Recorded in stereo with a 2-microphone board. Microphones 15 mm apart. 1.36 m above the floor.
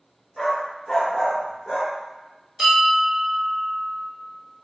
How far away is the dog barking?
About 1.0 m.